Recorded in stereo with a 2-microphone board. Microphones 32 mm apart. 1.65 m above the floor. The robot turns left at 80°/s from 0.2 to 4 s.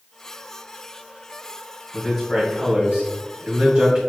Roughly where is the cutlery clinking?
No cutlery clinking in this recording.